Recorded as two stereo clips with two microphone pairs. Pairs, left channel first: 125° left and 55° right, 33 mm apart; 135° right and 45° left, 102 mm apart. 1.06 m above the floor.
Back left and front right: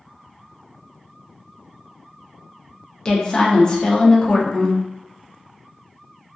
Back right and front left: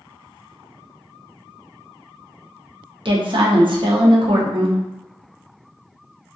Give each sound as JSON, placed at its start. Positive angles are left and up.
{"t": 3.0, "sound": "a woman speaking", "azimuth_deg": 60, "distance_m": 0.6}